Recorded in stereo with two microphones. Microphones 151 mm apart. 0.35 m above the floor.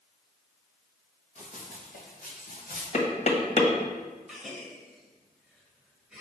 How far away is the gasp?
About 1.3 m.